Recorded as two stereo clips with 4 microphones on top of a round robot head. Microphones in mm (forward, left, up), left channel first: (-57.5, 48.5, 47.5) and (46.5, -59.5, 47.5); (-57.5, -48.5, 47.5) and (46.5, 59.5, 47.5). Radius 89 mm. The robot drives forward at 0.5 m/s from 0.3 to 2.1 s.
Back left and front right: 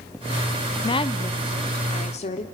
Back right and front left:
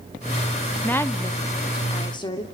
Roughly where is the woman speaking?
Behind left.